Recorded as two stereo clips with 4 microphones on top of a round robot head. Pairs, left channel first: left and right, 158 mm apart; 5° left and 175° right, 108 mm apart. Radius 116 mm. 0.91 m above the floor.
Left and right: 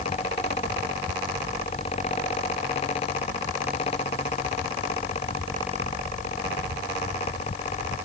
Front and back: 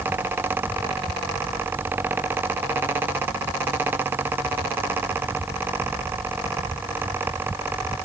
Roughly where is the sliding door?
No sliding door in this recording.